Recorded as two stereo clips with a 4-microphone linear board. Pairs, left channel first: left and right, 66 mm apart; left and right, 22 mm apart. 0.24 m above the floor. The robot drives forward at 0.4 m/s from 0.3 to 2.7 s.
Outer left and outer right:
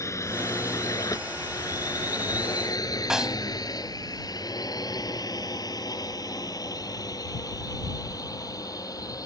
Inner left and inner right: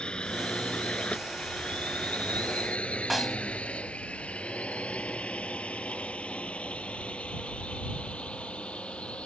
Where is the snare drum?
10° right (ahead or behind).